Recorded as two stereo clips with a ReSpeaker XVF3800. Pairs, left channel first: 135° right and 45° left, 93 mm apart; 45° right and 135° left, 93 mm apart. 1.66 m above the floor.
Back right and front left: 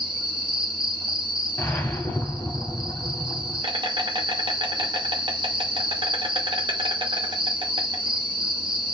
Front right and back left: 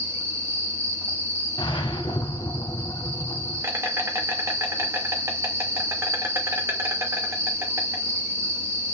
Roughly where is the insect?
Left.